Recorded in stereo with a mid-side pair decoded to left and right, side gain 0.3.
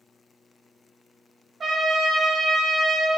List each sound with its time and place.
1.6 s a trumpet: 60° right, 0.7 m